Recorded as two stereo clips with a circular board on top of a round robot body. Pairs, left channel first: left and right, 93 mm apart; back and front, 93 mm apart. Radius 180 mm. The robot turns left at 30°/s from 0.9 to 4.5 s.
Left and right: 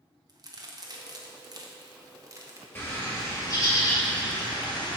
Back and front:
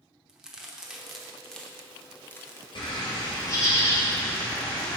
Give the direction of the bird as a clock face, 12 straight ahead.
7 o'clock.